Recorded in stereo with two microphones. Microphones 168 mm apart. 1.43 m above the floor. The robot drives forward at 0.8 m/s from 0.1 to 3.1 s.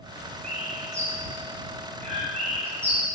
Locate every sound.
0.4 s a bird: 50° right (ahead or behind), 5.5 m; by 3.0 s 35° right (ahead or behind), 7 m